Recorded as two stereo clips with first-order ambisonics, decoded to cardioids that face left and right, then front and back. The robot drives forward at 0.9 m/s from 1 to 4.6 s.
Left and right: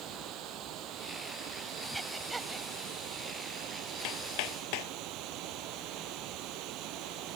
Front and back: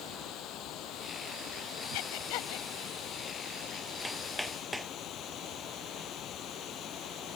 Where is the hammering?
85° left; by 4.9 s 90° left.